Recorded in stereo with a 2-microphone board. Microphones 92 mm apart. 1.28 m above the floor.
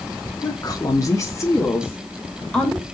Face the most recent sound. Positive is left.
turn(degrees=10)  # may be behind; listen again after turning